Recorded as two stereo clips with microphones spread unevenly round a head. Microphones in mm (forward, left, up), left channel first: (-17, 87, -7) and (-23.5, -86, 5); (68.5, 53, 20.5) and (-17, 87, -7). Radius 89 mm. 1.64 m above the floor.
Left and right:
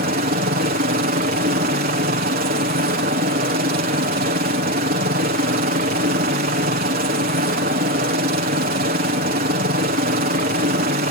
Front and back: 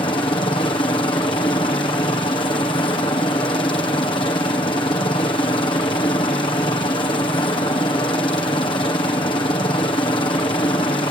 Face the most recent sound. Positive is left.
turn(degrees=-70)